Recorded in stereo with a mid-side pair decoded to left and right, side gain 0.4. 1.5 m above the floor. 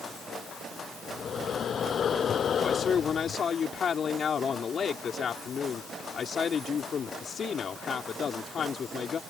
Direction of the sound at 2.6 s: 55° left.